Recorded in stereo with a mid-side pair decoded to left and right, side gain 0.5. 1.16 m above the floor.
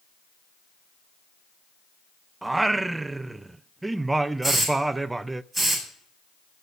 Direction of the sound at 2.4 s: 20° right.